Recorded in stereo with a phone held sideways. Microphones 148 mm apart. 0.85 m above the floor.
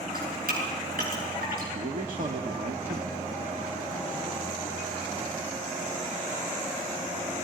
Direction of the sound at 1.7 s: 65° right (ahead or behind).